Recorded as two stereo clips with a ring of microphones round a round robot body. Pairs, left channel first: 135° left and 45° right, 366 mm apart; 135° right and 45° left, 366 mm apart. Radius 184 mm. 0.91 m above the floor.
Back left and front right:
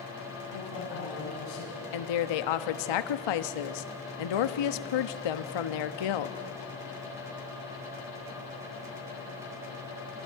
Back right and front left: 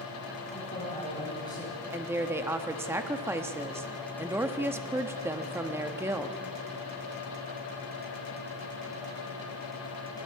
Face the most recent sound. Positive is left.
turn(degrees=130)